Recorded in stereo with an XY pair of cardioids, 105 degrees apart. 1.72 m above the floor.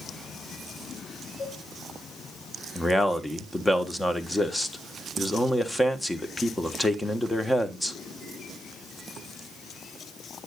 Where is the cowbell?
45° left, 8 m.